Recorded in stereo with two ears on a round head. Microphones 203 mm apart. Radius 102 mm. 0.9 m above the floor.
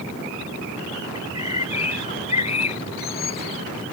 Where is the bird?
30° left (ahead or behind).